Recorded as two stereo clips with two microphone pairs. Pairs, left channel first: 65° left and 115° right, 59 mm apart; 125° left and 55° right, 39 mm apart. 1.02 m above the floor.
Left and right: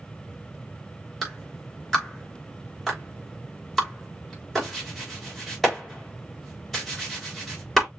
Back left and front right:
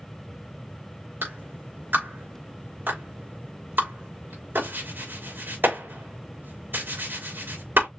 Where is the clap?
25° right, 3.5 m.